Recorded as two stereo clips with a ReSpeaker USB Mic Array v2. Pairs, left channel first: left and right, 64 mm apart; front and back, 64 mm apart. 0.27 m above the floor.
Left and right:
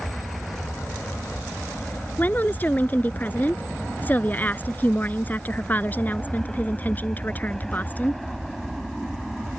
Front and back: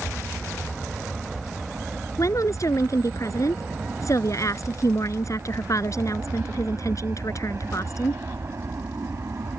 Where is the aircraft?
90° left; by 9.6 s straight behind.